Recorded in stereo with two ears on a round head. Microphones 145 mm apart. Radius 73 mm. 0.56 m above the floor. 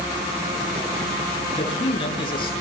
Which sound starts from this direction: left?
A man speaking, at 1.5 s.